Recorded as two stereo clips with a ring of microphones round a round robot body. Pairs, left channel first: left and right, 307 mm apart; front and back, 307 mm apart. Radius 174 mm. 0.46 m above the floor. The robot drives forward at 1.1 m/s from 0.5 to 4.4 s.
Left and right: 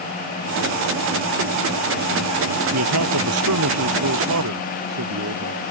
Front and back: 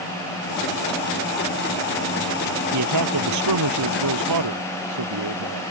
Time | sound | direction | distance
2.7 | a man speaking | 135° right | ?